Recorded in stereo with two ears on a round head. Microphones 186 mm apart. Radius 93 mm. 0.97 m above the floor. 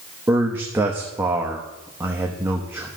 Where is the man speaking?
10° right (ahead or behind), 0.9 m.